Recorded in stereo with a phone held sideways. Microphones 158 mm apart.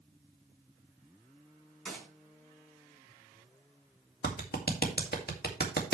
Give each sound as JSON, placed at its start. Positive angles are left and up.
{"t": 1.9, "sound": "a gunshot", "side_deg": 5, "distance_m": 5.0}
{"t": 4.2, "sound": "a clap", "side_deg": 80, "distance_m": 2.0}